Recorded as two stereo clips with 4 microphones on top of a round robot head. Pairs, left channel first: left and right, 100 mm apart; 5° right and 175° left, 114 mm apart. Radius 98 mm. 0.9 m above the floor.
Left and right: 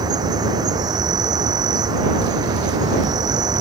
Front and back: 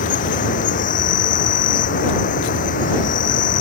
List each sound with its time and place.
0.0 s an insect: 30° right